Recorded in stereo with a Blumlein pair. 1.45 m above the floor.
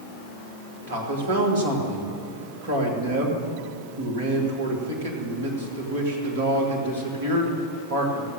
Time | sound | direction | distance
0.9 | a man speaking | 55° right | 2 m